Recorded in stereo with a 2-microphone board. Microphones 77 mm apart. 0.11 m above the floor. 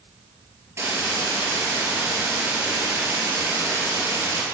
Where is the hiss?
35° right (ahead or behind), 2.0 m.